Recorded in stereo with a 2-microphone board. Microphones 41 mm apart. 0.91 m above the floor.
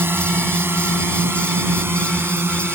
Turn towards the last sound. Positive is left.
turn(degrees=-70)  # may be behind; listen again after turning